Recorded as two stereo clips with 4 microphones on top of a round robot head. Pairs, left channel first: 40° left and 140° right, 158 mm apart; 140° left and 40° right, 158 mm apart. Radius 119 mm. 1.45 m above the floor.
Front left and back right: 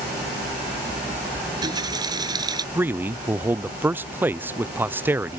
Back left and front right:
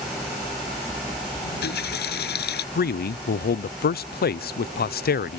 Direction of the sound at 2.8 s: 145° left.